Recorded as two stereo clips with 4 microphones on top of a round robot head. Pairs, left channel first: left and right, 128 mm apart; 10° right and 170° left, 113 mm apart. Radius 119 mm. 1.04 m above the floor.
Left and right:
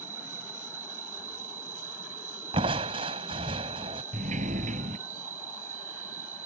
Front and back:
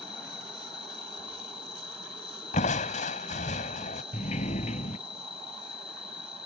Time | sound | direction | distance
0.0 | an insect | 60° right | ?
2.5 | crushing | 35° right | ?
4.1 | a sliding door | 50° right | ?